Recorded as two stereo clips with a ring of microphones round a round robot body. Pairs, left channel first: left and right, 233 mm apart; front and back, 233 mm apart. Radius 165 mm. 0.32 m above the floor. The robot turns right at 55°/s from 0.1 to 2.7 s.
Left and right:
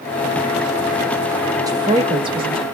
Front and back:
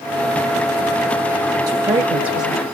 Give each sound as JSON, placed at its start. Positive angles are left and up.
{"t": 1.7, "sound": "a woman speaking", "azimuth_deg": -135, "distance_m": 1.0}